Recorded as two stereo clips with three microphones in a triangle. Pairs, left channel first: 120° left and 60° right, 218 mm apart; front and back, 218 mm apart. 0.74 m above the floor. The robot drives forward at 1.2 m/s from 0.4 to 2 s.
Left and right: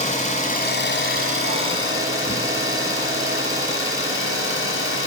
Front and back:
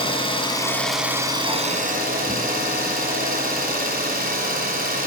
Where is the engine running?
65° left, 1.5 m; by 5.1 s 135° left, 1.9 m.